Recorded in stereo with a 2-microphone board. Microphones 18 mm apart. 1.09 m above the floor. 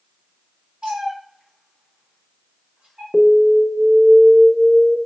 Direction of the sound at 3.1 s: 5° left (ahead or behind).